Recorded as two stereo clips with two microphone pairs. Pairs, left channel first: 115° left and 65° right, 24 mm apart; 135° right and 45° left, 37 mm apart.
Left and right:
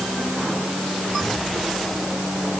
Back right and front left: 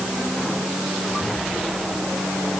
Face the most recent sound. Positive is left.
No sound to turn to.